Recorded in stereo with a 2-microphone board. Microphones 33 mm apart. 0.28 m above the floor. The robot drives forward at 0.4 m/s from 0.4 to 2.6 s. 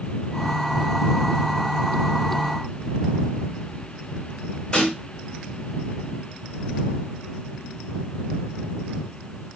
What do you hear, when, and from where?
4.7 s a snare drum: 35° left (ahead or behind), 1.5 m